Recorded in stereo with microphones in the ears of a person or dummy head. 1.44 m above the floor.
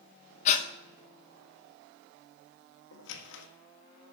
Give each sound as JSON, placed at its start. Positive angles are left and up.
{"t": 0.5, "sound": "breathing", "side_deg": 50, "distance_m": 1.0}
{"t": 2.9, "sound": "a squeak", "side_deg": 70, "distance_m": 1.5}